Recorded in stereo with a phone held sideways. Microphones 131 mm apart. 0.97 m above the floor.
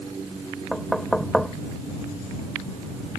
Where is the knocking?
5° left (ahead or behind).